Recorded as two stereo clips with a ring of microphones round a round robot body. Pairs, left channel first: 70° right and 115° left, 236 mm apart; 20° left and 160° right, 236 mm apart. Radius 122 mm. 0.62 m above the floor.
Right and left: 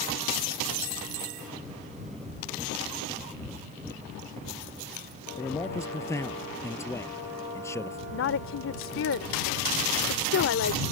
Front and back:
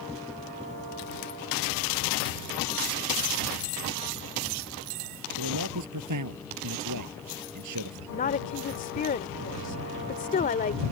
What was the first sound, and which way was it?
A man speaking, 145° right.